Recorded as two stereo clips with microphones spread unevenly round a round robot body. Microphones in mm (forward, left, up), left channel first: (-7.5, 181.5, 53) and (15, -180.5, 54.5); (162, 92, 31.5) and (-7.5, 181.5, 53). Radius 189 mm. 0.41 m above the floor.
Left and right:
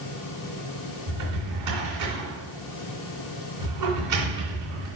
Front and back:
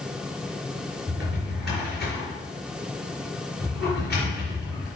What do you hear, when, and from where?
1.1 s a drawer: 125° right, 3 m